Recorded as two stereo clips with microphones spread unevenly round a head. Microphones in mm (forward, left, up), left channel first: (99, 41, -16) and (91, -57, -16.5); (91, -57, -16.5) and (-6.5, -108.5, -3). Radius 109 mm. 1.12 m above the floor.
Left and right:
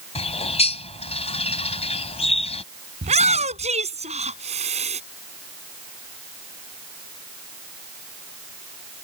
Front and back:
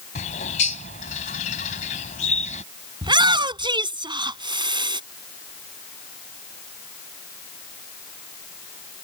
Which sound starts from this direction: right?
A shout, at 3.0 s.